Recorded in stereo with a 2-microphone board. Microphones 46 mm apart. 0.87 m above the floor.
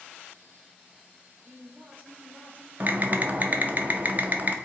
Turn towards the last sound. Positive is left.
turn(degrees=-40)  # may be behind; listen again after turning